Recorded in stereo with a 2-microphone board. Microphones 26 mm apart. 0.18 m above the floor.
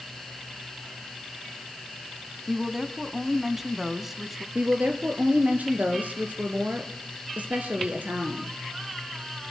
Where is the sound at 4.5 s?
70° right (ahead or behind), 3 m.